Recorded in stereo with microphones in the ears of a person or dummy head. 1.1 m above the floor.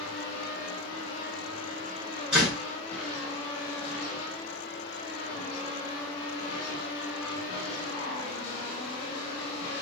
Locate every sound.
2.3 s a door slam: 5° right (ahead or behind), 3.5 m